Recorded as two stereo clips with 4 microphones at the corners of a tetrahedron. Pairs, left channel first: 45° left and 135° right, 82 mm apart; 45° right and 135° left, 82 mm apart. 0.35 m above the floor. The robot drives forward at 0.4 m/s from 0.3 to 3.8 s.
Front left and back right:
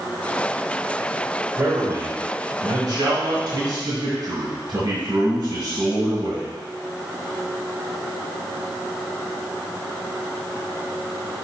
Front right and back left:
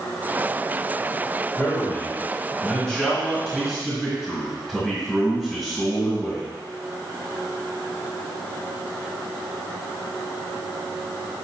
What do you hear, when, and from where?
1.6 s a man speaking: 95° right, 1.3 m; by 6.5 s 135° right, 1.7 m